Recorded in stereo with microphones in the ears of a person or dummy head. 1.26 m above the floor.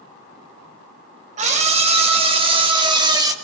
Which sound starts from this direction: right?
A scream, at 1.4 s.